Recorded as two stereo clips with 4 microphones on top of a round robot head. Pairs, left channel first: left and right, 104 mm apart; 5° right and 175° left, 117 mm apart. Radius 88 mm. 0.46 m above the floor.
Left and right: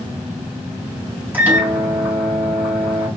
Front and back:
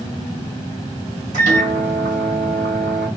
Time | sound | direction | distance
1.3 | a microwave | 165° right | 3.5 m